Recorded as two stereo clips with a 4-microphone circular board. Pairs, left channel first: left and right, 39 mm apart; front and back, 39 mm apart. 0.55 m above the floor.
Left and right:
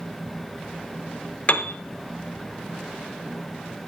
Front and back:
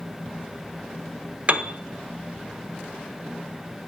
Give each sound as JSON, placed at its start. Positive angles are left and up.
{"t": 1.5, "sound": "a piano", "azimuth_deg": 130, "distance_m": 0.6}